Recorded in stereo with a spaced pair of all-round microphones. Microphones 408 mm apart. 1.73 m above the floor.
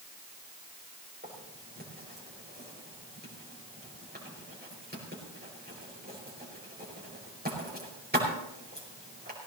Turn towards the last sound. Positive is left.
turn(degrees=-25)  # may be behind; listen again after turning